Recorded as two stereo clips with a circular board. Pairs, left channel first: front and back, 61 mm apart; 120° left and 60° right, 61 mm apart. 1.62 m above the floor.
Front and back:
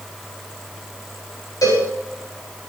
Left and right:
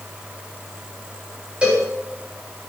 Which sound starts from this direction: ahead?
A cowbell, at 1.6 s.